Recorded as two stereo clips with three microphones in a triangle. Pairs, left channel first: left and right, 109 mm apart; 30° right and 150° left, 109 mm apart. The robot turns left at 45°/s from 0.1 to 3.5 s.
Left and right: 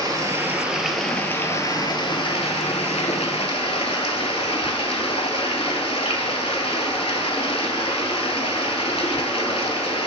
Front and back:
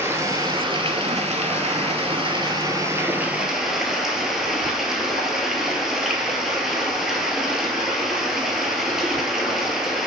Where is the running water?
145° right, 0.7 m; by 10.1 s 65° left, 0.7 m.